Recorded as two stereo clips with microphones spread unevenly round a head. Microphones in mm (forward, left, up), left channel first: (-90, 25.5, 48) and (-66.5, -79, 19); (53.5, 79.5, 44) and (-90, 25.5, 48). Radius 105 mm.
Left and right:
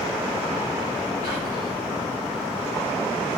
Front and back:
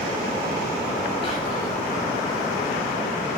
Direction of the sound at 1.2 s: 75° left.